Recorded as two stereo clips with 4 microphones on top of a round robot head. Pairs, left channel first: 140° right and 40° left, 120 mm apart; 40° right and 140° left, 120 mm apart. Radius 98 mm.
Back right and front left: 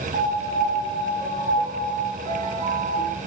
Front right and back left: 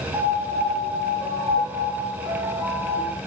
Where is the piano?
70° left, 0.6 m.